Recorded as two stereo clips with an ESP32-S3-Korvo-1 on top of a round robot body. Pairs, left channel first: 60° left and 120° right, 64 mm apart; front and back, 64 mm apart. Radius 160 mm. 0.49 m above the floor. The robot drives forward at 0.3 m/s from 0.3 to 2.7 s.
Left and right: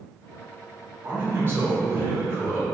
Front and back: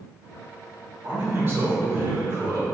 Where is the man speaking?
150° right, 1.3 m; by 2.6 s 160° right, 1.6 m.